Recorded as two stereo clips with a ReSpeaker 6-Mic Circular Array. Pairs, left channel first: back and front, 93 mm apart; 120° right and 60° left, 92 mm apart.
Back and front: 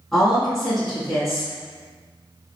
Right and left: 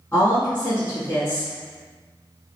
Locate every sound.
0.1 s a woman speaking: 95° right, 1.7 m